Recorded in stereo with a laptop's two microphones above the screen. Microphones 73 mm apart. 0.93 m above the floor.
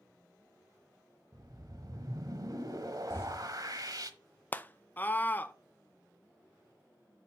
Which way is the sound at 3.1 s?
30° left (ahead or behind).